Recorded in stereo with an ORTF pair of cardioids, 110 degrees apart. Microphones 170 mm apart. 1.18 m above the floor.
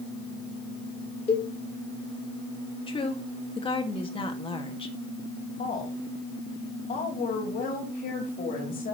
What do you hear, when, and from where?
1.3 s a cowbell: 35° left, 2.0 m
2.9 s a woman speaking: 30° left, 1.8 m
5.6 s a woman speaking: 55° left, 3 m